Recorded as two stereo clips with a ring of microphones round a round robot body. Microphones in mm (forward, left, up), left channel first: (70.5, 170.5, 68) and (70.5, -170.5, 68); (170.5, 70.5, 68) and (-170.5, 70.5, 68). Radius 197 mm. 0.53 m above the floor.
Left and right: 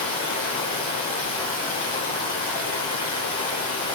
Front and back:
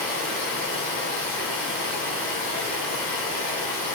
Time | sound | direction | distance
0.0 | running water | 25° left | 1.2 m